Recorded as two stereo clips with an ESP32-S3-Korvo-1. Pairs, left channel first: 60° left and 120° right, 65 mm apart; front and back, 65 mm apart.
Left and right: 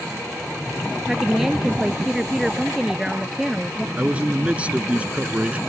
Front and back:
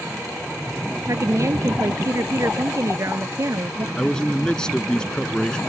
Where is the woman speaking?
155° left.